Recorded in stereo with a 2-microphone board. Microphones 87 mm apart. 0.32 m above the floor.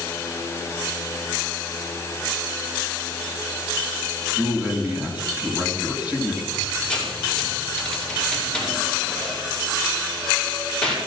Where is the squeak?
10° left (ahead or behind), 4.5 m.